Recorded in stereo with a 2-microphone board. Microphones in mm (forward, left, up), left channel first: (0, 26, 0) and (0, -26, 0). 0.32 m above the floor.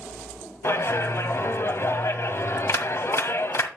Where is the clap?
55° left (ahead or behind), 1.6 m.